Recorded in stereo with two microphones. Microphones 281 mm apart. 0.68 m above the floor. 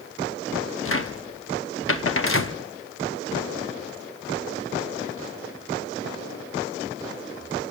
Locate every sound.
0.8 s a cupboard door: 50° left (ahead or behind), 1.0 m